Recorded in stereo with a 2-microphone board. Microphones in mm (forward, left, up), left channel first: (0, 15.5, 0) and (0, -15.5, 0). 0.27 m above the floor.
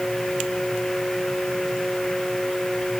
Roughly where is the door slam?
I don't hear a door slam.